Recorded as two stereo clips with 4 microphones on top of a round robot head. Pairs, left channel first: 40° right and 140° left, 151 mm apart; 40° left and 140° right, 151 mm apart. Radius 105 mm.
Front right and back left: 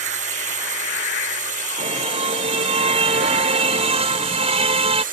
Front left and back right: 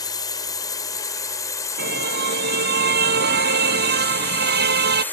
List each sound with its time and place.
0.0 s a drone: 105° left; by 5.1 s 120° left
1.8 s a car horn: 165° right